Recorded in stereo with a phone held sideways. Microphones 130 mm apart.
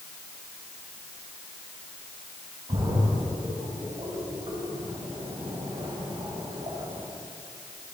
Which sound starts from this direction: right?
A splash, at 2.7 s.